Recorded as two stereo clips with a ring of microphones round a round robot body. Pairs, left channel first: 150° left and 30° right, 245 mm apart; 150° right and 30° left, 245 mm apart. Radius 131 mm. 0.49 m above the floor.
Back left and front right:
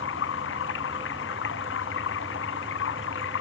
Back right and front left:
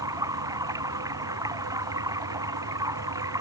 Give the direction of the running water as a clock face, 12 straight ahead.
8 o'clock.